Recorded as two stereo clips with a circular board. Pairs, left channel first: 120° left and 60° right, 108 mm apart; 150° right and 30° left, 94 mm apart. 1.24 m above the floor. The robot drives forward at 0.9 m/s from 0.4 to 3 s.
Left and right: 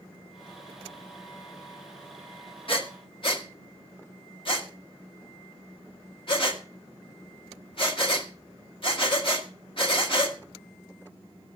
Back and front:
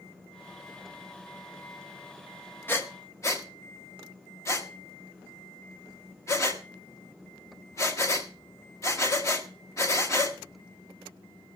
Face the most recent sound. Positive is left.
turn(degrees=155)